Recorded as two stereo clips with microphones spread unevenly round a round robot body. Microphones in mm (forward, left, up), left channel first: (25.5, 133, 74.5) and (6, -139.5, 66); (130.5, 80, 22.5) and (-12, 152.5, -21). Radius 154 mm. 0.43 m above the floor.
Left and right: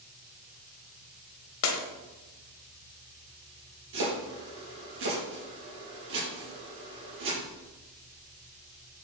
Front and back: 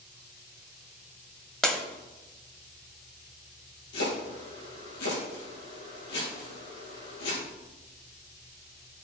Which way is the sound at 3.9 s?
50° right.